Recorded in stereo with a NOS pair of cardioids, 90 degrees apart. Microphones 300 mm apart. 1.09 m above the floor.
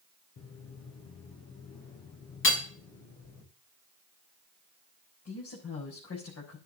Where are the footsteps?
65° left, 6 m.